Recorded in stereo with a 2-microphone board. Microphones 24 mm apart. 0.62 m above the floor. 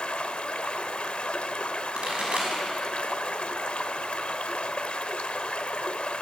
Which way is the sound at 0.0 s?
70° left (ahead or behind).